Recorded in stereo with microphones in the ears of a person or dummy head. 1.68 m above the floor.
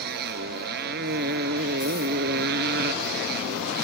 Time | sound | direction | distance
0.0 | a motorcycle | 50° right (ahead or behind) | ?